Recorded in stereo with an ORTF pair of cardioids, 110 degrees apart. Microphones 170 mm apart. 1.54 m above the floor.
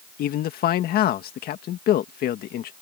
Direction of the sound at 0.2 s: 65° left.